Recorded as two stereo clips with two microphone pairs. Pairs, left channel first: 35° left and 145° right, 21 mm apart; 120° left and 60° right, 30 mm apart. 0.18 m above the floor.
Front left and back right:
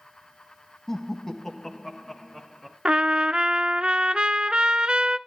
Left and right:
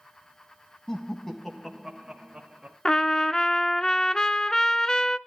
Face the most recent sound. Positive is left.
turn(degrees=-170)